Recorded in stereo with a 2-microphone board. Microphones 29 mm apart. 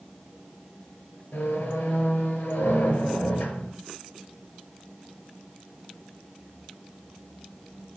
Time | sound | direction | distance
1.3 | a squeak | 70° left (ahead or behind) | 2.5 m